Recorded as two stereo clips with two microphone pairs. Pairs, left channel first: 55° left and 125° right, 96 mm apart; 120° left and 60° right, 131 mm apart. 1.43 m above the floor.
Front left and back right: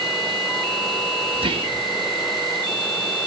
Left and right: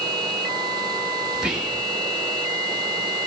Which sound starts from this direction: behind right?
Whispering, at 1.3 s.